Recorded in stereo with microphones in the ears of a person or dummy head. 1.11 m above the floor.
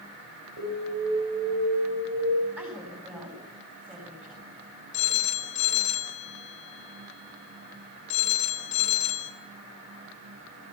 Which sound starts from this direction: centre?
A woman speaking, at 2.6 s.